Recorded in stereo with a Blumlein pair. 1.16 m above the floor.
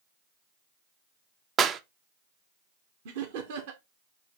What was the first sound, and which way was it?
A clap, 25° right.